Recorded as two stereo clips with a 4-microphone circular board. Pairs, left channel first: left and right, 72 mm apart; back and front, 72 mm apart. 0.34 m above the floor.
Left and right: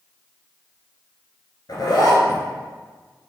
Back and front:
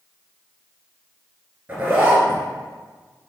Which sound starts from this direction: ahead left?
A zipper, at 1.7 s.